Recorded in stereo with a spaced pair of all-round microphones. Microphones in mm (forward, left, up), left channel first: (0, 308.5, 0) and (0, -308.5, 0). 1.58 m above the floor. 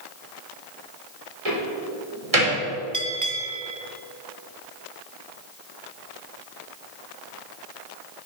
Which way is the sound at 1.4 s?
65° right (ahead or behind).